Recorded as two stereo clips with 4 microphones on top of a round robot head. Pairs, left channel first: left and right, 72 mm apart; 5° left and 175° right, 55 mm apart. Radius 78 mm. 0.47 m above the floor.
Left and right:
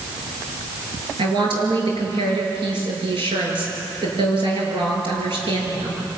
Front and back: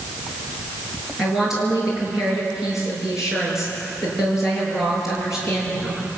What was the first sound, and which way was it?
A woman speaking, 85° right.